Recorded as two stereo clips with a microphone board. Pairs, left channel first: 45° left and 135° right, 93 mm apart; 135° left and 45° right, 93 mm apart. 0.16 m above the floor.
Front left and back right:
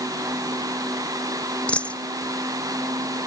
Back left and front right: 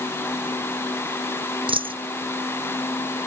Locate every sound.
1.7 s a dropped coin: 30° right